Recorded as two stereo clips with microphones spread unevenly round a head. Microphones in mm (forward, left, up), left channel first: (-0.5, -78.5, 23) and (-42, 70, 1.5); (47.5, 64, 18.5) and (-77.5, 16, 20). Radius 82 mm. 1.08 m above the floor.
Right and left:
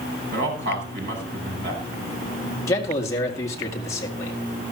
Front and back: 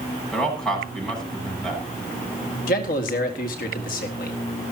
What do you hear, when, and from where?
0.3 s a man speaking: 105° left, 8.5 m
2.7 s a man speaking: straight ahead, 1.9 m